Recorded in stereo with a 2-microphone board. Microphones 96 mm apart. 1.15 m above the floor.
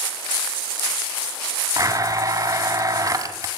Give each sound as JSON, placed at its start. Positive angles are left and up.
{"t": 1.8, "sound": "a blender", "side_deg": -40, "distance_m": 1.8}